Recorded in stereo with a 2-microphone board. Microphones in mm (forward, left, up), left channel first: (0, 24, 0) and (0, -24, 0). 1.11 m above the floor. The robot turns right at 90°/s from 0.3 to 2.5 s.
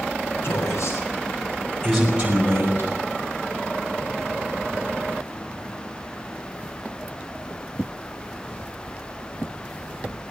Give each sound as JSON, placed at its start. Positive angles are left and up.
{"t": 0.4, "sound": "a man speaking", "side_deg": 45, "distance_m": 6.0}